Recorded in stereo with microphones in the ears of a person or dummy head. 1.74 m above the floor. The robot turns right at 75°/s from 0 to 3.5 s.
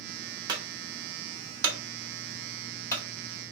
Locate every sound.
0.5 s a clunk: 20° right (ahead or behind), 0.8 m; by 3.0 s 30° left (ahead or behind), 0.8 m